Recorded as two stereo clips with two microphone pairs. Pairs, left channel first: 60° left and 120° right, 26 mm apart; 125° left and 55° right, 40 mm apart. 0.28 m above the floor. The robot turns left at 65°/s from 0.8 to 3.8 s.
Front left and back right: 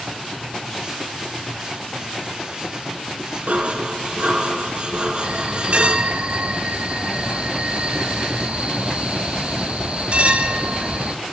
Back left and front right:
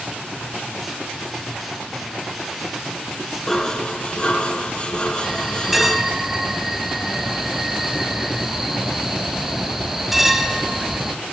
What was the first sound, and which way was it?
Dishes clattering, 150° right.